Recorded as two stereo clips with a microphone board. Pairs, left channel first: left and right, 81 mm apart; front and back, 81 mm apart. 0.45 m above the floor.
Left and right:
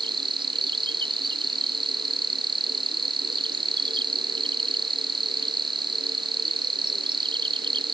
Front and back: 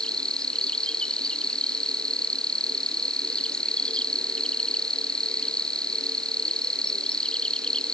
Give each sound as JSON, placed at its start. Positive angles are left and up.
{"t": 0.0, "sound": "an insect", "azimuth_deg": -80}